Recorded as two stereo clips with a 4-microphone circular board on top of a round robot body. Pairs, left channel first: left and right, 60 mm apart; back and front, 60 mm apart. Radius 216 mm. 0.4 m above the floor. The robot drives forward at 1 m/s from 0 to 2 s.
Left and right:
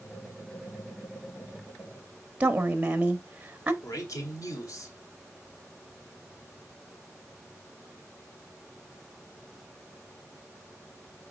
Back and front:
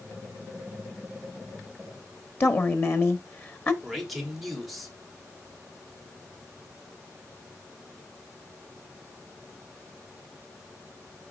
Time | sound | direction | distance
2.4 | a woman speaking | 150° right | 1.3 m
3.8 | a man speaking | 90° left | 2.5 m